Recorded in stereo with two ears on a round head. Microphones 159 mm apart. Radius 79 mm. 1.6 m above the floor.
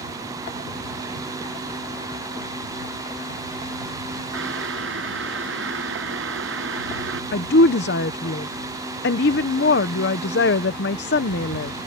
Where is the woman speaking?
65° left (ahead or behind).